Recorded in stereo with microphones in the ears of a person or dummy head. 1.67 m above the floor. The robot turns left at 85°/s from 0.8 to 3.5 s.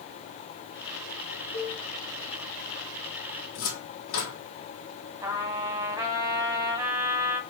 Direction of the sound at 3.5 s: 70° left (ahead or behind).